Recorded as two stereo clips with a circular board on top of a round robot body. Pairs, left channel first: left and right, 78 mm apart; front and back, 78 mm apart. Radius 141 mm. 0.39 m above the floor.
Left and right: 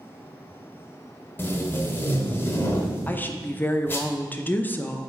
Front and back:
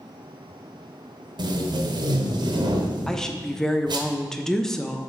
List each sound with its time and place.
1.4 s tape being pulled: 155° left, 1.0 m
3.1 s a woman speaking: 75° left, 0.8 m